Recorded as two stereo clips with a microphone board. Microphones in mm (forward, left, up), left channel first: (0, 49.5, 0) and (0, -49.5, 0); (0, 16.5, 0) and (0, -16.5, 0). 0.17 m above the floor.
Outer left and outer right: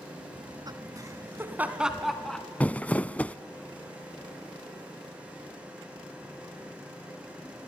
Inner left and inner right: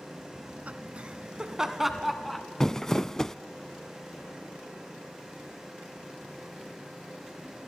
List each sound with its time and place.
0.3 s laughter: 50° right (ahead or behind), 2.5 m; by 2.5 s 10° left (ahead or behind), 2.5 m
2.6 s crumpling: 15° left (ahead or behind), 0.5 m